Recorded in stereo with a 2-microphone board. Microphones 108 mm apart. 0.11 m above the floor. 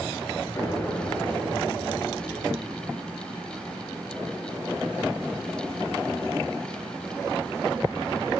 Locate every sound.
0.6 s an explosion: 20° left (ahead or behind), 1.7 m